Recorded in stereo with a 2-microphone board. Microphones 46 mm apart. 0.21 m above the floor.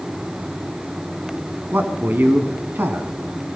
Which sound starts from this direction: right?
A man speaking, at 1.7 s.